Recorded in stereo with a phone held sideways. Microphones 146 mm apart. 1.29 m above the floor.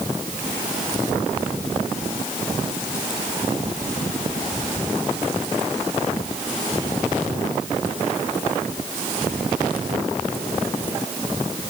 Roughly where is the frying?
I don't hear frying.